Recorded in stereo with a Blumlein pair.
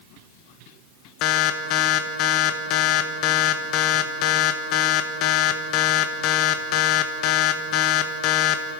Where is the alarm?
40° left, 1.5 m.